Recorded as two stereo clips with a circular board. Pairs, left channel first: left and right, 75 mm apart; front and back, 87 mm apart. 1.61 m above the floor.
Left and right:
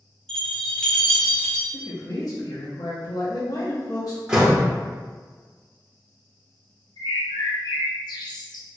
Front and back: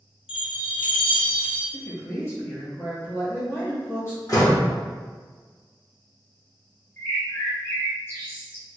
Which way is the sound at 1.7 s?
60° left.